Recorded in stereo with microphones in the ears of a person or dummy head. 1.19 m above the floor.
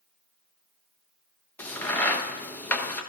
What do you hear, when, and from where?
1.6 s a crack: 15° left (ahead or behind), 0.9 m